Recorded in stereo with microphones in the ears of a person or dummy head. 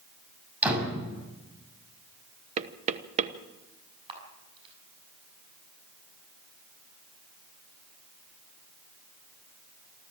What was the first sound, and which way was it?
A door slam, 10° right (ahead or behind).